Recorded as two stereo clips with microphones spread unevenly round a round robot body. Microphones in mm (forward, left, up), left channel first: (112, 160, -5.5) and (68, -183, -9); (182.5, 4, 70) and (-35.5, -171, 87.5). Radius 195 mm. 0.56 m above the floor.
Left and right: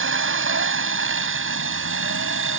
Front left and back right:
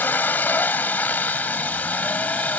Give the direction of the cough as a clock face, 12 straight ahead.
I don't hear a cough.